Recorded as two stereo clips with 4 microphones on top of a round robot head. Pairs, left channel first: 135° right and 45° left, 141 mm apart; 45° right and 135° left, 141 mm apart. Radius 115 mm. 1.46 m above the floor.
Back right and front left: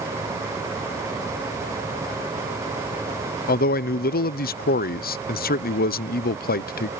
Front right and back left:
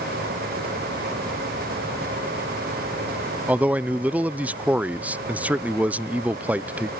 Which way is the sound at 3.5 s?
145° right.